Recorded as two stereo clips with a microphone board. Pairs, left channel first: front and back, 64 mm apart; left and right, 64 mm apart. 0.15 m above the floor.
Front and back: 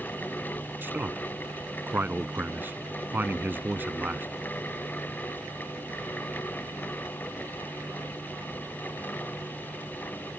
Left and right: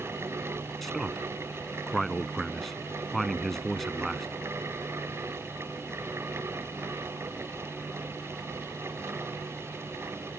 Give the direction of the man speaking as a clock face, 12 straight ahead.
6 o'clock.